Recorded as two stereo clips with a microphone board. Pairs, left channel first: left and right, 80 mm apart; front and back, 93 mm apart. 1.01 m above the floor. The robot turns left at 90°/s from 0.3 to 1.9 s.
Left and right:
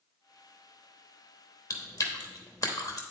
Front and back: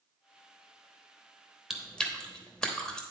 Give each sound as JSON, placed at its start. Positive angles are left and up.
{"t": 1.7, "sound": "chewing", "azimuth_deg": 95, "distance_m": 1.0}